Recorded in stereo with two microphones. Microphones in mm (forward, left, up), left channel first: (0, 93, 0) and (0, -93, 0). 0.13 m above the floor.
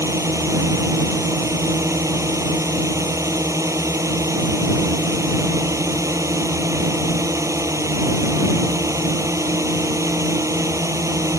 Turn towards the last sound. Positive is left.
turn(degrees=-15)  # may be behind; listen again after turning